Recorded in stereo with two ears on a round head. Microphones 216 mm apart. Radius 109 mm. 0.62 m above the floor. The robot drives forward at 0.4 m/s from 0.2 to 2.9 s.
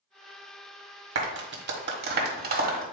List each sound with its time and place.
1.1 s a clap: 50° right (ahead or behind), 1.4 m; by 2.8 s 40° right (ahead or behind), 1.7 m